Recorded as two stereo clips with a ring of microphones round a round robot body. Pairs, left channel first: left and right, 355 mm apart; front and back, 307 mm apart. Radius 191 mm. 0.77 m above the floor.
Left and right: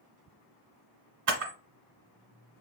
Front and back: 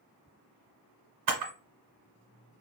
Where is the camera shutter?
140° right, 1.2 m.